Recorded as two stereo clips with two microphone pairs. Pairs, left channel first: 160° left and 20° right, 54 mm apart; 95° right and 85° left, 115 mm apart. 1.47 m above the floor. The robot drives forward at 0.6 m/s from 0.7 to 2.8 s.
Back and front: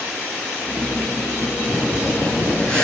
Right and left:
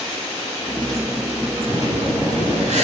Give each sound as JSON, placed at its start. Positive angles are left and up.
{"t": 1.7, "sound": "breathing", "azimuth_deg": 85, "distance_m": 6.5}